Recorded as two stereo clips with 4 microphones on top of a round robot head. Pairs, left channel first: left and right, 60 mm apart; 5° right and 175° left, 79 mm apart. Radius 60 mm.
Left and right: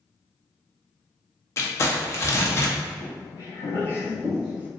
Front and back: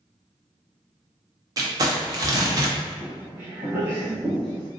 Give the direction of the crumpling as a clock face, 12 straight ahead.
8 o'clock.